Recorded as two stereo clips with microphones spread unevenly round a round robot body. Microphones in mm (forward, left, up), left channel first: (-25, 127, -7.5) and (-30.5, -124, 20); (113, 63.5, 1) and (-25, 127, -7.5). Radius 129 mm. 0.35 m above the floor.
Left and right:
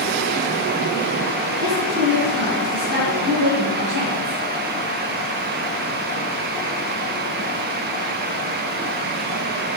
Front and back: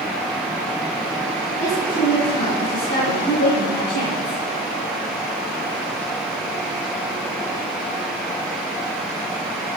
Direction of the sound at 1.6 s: 45° right.